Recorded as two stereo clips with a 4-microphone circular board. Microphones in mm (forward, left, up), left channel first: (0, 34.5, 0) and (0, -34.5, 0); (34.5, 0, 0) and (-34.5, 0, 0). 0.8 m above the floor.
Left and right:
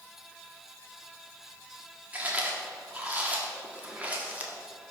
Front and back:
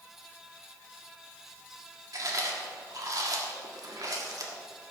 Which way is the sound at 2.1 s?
155° right.